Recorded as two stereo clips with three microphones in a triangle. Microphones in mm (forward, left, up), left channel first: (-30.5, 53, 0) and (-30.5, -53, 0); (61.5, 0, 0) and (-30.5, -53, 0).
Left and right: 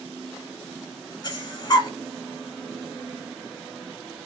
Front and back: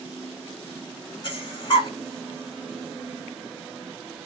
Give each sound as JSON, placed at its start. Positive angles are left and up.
{"t": 1.2, "sound": "breathing", "azimuth_deg": 55, "distance_m": 0.7}